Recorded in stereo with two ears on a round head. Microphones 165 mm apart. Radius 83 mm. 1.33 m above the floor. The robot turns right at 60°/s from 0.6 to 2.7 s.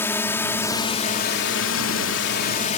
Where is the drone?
15° left; by 2.8 s 140° left.